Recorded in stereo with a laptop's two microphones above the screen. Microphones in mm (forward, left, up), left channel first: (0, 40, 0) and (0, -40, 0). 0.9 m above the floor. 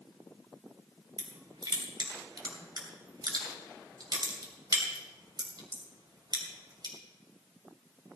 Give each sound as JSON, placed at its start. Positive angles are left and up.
{"t": 1.2, "sound": "crushing", "side_deg": -55, "distance_m": 2.5}